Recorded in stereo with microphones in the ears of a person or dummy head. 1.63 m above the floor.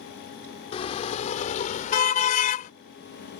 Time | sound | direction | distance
0.7 | a car horn | 35° left (ahead or behind) | ?